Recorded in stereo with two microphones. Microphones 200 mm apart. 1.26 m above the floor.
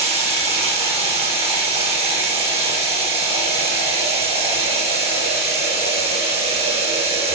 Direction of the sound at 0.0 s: 30° right (ahead or behind).